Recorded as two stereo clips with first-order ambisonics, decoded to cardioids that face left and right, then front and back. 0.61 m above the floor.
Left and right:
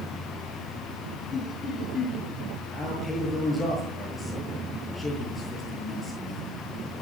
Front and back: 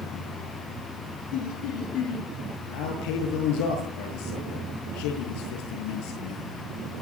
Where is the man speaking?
5° left, 10 m.